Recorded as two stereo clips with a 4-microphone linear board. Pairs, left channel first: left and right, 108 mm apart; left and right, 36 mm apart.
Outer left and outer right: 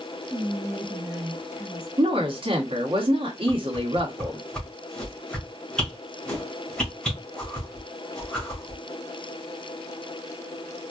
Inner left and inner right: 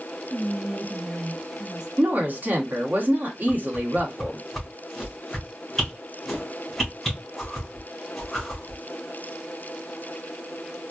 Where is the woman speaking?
55° right (ahead or behind), 1.5 m.